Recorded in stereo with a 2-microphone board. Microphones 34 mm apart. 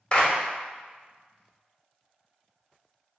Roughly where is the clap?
Left.